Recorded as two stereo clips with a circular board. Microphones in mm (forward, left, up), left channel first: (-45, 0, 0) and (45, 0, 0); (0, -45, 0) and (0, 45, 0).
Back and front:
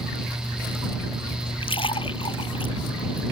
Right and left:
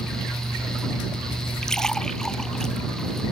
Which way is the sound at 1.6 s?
175° right.